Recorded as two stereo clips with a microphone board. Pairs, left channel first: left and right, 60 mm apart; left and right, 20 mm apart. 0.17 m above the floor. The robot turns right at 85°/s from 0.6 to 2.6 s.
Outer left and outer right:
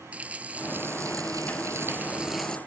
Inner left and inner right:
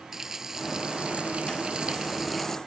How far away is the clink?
I don't hear a clink.